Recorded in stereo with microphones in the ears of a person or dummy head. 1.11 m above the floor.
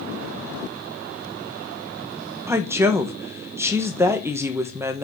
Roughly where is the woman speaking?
Centre.